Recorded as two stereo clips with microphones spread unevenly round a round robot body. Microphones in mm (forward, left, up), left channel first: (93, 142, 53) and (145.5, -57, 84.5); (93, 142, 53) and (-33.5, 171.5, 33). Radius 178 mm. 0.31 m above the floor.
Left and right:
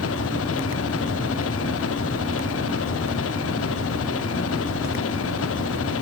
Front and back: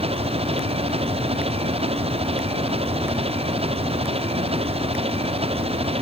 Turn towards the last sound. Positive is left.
turn(degrees=125)